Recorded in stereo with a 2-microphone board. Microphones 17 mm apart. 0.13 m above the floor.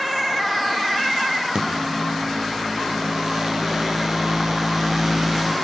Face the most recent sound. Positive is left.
turn(degrees=-55)  # may be behind; listen again after turning